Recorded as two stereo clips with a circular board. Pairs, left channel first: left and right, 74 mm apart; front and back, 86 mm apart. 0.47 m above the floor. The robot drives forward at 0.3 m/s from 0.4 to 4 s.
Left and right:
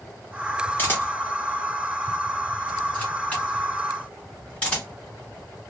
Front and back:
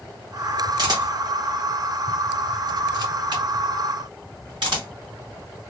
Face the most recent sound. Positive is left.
turn(degrees=160)